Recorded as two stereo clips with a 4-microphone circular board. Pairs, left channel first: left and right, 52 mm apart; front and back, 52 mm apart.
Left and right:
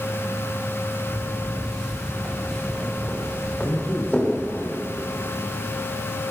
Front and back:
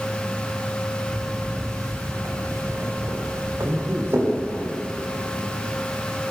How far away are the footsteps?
About 6.5 m.